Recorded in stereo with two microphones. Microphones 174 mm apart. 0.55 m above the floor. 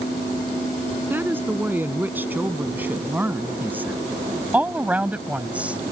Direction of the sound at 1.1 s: 10° right (ahead or behind).